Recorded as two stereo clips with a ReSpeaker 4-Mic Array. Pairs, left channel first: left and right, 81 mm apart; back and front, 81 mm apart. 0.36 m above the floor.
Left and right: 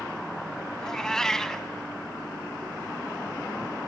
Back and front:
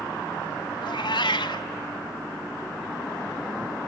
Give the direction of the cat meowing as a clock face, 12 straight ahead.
6 o'clock.